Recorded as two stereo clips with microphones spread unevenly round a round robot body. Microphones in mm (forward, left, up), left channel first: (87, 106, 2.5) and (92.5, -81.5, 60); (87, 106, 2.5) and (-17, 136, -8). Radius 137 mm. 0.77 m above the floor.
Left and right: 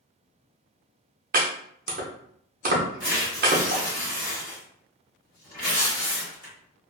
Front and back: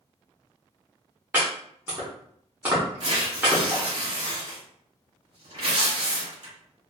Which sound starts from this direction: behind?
Tearing paper, at 3.0 s.